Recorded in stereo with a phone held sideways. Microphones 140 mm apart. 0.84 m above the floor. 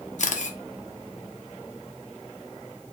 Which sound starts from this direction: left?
A camera shutter, at 0.2 s.